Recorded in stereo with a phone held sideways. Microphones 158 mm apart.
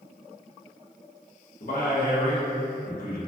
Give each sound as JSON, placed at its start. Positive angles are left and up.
{"t": 1.6, "sound": "a man speaking", "side_deg": 65, "distance_m": 1.0}